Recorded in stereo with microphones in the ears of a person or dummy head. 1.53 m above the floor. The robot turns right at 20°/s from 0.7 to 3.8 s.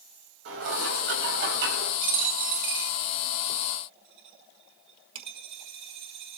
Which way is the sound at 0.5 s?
85° right.